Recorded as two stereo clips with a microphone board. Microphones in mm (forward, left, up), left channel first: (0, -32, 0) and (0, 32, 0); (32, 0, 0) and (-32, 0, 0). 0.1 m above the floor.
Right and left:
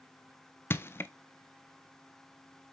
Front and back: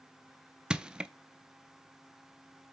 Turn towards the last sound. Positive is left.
turn(degrees=-110)